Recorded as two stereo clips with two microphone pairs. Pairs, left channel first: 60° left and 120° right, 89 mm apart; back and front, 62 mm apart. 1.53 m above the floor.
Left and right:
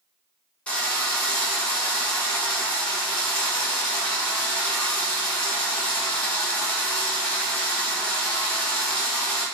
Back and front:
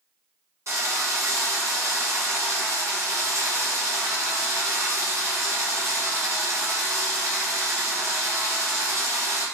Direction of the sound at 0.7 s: 5° right.